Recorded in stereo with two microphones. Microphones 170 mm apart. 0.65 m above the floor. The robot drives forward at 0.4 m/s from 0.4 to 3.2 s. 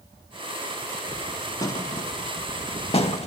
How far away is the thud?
About 0.9 m.